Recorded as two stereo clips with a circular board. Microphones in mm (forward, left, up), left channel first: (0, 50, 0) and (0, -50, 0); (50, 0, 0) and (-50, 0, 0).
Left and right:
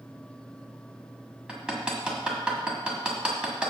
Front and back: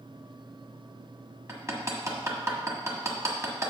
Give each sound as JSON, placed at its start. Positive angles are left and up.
{"t": 1.5, "sound": "hammering", "azimuth_deg": -160, "distance_m": 1.4}